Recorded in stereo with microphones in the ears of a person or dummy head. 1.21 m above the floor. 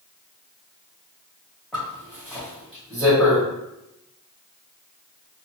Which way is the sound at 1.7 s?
Centre (ahead or behind).